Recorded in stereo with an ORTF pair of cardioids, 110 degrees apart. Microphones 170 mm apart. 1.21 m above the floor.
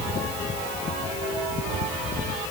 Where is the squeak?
I don't hear a squeak.